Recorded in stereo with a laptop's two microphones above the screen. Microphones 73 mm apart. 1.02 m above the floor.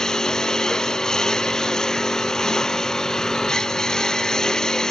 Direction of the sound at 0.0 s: 10° left (ahead or behind).